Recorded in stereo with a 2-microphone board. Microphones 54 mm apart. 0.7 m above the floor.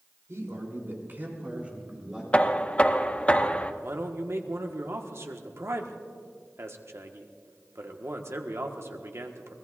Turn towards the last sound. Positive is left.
turn(degrees=-60)  # may be behind; listen again after turning